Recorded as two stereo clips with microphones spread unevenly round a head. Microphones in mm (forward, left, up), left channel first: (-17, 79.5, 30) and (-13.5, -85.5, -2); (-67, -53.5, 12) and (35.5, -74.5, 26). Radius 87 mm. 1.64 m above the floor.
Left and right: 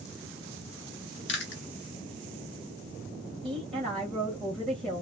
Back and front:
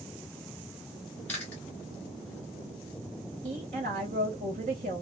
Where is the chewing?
85° left, 0.8 m.